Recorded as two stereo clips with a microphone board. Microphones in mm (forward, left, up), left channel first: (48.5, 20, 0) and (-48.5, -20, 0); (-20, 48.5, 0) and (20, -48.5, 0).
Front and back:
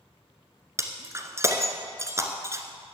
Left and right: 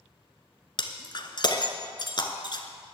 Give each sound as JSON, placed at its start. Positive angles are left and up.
{"t": 0.8, "sound": "breaking glass", "azimuth_deg": 145, "distance_m": 1.3}